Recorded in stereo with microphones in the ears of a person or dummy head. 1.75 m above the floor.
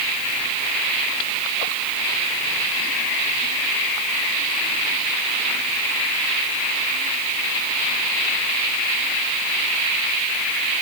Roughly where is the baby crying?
No baby crying in this recording.